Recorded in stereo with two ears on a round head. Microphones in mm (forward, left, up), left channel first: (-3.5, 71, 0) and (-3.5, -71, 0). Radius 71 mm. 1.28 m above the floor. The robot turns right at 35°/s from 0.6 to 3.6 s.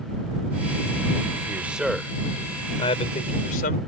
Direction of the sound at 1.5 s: 15° right.